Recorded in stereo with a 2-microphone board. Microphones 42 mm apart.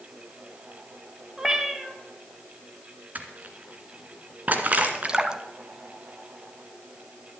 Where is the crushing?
40° right (ahead or behind), 1.9 m.